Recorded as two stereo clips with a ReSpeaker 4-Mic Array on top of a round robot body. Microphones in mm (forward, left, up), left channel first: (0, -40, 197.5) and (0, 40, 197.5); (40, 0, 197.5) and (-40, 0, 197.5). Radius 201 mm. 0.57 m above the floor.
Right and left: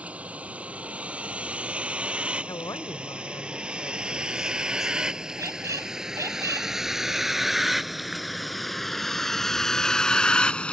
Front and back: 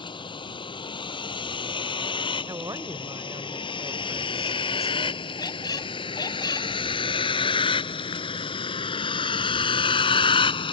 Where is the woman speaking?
135° right.